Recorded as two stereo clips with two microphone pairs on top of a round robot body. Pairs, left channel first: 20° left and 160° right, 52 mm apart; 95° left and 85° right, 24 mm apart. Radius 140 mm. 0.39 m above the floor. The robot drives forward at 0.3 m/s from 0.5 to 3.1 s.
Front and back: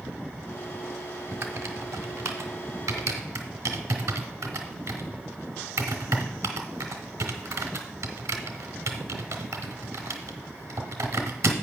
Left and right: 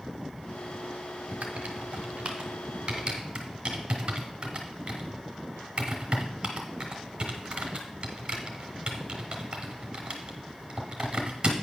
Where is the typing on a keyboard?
120° right, 0.8 m; by 11.5 s 145° right, 1.1 m.